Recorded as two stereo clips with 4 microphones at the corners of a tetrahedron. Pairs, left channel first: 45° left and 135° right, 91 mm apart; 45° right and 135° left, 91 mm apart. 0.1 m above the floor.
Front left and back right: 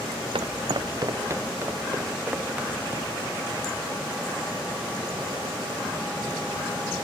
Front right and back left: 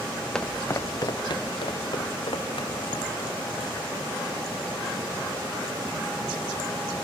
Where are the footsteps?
130° right, 0.7 m; by 3.2 s 60° right, 3 m.